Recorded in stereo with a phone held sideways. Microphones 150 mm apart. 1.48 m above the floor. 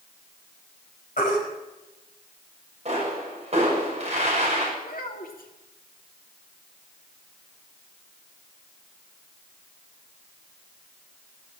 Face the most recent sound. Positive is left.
turn(degrees=75)  # may be behind; listen again after turning